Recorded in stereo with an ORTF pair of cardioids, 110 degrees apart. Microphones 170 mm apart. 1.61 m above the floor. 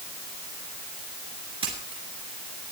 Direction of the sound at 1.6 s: 35° right.